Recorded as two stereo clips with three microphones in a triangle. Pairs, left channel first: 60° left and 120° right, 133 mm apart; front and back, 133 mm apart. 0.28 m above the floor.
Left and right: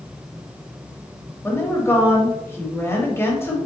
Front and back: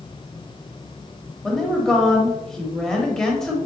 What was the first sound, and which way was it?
A woman speaking, 80° left.